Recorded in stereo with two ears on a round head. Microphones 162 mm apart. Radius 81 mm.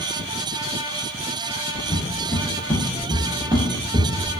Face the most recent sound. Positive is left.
turn(degrees=-40)  # may be behind; listen again after turning